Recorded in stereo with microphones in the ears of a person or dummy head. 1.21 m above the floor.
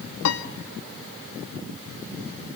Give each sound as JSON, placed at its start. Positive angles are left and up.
{"t": 0.2, "sound": "a piano", "side_deg": 75, "distance_m": 1.3}